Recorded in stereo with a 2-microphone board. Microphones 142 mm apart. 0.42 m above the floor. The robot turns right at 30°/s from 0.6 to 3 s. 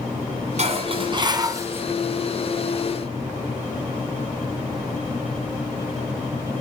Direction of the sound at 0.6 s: 50° right.